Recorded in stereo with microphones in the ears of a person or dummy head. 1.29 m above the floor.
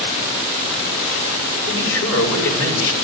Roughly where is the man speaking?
Left.